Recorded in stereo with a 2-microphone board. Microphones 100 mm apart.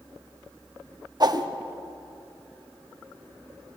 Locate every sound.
1.2 s a whoosh: 45° right (ahead or behind), 1.0 m